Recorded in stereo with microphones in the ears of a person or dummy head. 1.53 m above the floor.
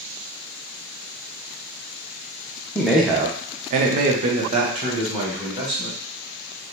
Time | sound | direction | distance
2.8 | a man speaking | 5° left (ahead or behind) | 0.6 m